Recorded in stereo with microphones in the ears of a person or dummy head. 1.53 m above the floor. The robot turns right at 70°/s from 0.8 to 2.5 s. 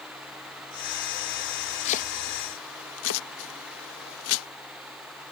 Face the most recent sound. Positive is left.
turn(degrees=75)  # may be behind; listen again after turning